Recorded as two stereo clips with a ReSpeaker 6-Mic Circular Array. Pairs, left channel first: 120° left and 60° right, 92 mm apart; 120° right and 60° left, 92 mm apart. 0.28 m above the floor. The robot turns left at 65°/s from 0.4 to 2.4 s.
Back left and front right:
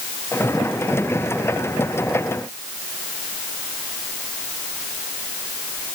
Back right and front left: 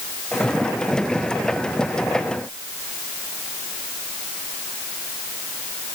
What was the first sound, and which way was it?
Only background noise.